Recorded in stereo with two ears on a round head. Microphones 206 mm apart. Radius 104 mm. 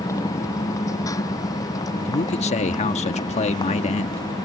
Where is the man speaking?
30° left (ahead or behind).